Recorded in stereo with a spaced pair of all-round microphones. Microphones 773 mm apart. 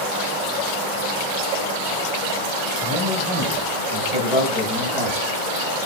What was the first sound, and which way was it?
A man speaking, 10° right (ahead or behind).